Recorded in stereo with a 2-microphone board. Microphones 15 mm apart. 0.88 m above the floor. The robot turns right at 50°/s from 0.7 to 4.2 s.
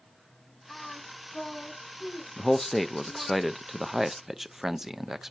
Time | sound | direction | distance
0.7 | singing | 40° left (ahead or behind) | 5 m
2.4 | a man speaking | 20° left (ahead or behind) | 0.5 m